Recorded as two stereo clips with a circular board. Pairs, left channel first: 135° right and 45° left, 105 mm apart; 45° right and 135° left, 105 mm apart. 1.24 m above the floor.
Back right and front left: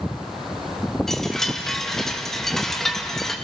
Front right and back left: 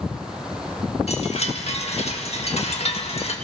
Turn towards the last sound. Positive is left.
turn(degrees=-50)